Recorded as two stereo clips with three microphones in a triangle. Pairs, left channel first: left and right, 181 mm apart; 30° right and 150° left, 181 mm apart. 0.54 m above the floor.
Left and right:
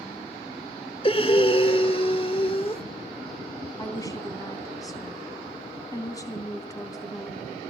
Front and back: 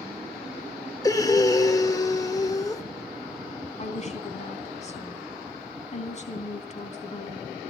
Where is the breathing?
35° left, 1.4 m.